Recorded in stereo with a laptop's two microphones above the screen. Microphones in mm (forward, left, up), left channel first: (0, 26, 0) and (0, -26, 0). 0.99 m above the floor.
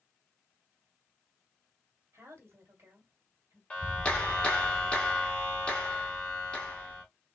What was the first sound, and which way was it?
A woman speaking, 65° right (ahead or behind).